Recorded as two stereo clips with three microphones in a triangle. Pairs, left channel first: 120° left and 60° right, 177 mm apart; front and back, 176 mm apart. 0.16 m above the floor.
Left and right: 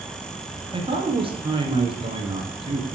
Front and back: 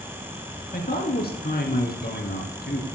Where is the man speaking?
5° right, 3 m.